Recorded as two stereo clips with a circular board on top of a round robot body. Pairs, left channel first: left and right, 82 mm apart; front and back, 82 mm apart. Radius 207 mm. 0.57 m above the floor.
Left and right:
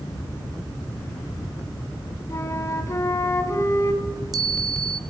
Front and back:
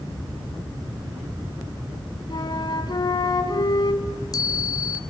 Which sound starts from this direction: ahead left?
A flute, at 2.3 s.